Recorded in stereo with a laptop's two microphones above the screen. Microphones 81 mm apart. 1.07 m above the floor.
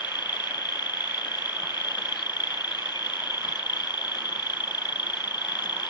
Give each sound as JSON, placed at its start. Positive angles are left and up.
{"t": 0.0, "sound": "an insect", "side_deg": 65}